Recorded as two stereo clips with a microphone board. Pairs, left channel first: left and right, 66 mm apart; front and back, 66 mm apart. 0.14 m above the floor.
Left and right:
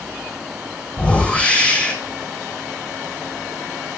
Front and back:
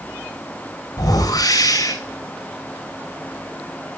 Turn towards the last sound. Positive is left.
turn(degrees=15)